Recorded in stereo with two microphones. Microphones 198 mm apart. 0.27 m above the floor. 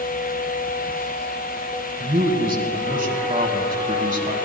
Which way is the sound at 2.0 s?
45° right (ahead or behind).